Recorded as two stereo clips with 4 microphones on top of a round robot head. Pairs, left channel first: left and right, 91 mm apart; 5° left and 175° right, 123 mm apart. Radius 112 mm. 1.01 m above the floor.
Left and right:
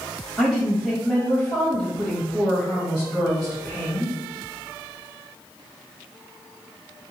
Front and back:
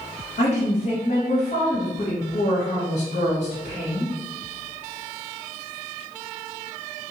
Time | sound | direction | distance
0.4 | a woman speaking | 5° left | 1.5 m